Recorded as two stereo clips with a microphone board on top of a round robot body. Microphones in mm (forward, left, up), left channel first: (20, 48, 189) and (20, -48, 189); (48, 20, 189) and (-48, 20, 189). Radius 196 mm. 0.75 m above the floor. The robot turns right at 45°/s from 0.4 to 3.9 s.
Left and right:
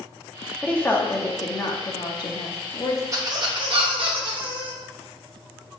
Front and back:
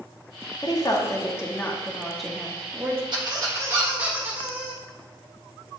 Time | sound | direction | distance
0.6 | a woman speaking | 15° left | 1.0 m
3.1 | a squeak | 145° right | 1.1 m